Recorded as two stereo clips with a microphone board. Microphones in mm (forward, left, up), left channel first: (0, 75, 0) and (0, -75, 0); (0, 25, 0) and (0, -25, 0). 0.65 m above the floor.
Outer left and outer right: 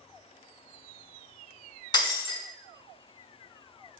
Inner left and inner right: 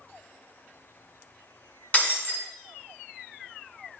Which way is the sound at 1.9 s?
30° left (ahead or behind).